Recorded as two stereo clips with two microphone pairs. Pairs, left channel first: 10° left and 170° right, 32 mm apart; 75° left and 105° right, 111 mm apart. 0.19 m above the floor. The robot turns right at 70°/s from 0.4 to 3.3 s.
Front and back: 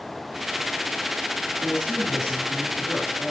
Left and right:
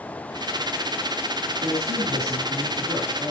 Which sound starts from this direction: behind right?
A man speaking, at 1.6 s.